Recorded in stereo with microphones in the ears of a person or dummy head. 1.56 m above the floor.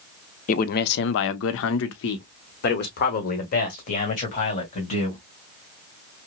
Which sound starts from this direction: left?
A man speaking, at 0.5 s.